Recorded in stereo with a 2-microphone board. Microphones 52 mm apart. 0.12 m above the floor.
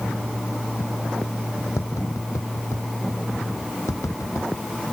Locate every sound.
1.8 s tapping: 70° left (ahead or behind)